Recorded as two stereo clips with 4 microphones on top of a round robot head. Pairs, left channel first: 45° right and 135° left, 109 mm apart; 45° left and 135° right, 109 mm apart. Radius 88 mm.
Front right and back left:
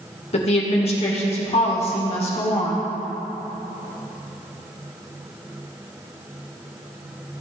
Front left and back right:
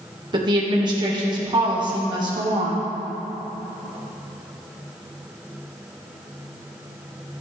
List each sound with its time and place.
0.3 s a woman speaking: 80° right, 2 m